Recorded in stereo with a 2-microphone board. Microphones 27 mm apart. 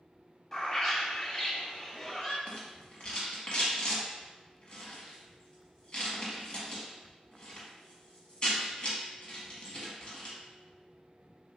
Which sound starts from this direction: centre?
A bird, at 0.5 s.